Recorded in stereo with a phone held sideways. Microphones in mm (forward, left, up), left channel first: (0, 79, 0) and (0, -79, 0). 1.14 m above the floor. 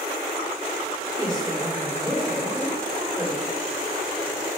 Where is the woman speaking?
15° right (ahead or behind), 3 m.